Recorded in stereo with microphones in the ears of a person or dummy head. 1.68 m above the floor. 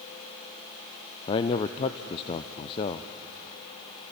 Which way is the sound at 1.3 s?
30° left (ahead or behind).